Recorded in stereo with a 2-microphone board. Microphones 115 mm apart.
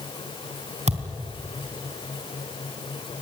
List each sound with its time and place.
0.9 s a thud: 70° right (ahead or behind), 3 m